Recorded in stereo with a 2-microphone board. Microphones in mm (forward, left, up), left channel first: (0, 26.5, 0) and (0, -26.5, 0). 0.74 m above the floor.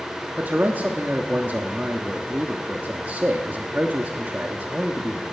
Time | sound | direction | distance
0.4 | a man speaking | 35° right (ahead or behind) | 1.2 m